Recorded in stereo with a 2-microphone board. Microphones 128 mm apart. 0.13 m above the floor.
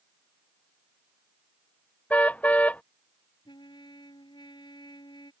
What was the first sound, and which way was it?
A car horn, 10° left (ahead or behind).